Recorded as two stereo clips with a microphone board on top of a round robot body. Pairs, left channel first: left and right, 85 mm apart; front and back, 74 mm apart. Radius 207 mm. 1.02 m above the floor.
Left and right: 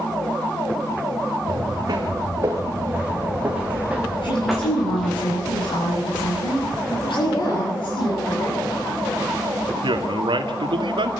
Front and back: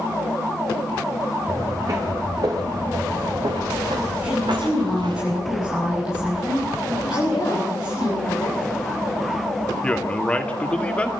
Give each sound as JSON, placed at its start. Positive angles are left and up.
{"t": 1.5, "sound": "footsteps", "azimuth_deg": -130, "distance_m": 4.5}
{"t": 4.2, "sound": "a woman speaking", "azimuth_deg": 95, "distance_m": 8.5}
{"t": 7.1, "sound": "a woman speaking", "azimuth_deg": 45, "distance_m": 4.5}
{"t": 9.8, "sound": "a man speaking", "azimuth_deg": -75, "distance_m": 2.5}